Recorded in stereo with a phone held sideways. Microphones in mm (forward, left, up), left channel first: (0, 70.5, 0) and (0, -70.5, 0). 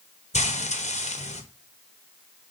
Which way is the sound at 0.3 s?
60° left (ahead or behind).